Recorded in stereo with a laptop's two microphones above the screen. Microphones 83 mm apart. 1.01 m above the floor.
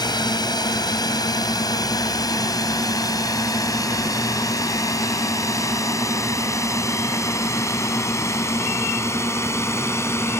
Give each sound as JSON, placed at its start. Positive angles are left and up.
{"t": 0.0, "sound": "a drone", "side_deg": 55}